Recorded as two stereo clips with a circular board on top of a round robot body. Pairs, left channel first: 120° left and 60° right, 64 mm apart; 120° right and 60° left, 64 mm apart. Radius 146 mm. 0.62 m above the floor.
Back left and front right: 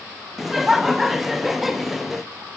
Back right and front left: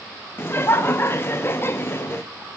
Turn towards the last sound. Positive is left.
turn(degrees=-145)